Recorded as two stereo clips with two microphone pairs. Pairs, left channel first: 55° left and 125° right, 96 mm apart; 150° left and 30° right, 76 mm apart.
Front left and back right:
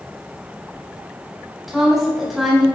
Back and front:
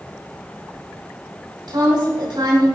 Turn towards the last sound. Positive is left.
turn(degrees=-40)